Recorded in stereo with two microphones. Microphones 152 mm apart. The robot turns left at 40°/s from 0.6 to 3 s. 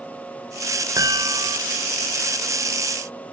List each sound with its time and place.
1.0 s a chime: 25° right (ahead or behind), 0.9 m; by 1.6 s 30° right (ahead or behind), 0.9 m